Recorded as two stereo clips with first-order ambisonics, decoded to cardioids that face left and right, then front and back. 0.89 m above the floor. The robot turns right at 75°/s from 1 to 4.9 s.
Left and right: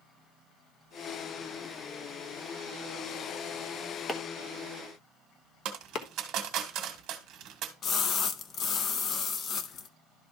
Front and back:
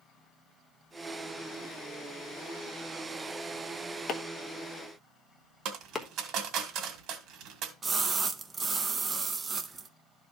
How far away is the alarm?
I don't hear an alarm.